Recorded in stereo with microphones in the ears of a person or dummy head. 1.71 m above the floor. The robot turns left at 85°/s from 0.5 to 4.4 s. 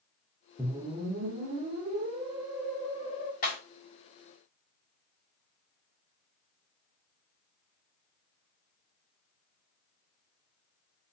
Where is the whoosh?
10° right, 0.6 m; by 3.3 s 120° left, 0.6 m.